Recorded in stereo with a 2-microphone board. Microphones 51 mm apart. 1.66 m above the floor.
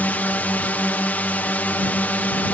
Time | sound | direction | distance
0.0 | a drone | 35° left (ahead or behind) | ?